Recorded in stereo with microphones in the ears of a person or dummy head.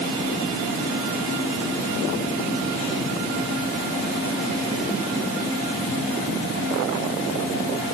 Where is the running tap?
No running tap in this recording.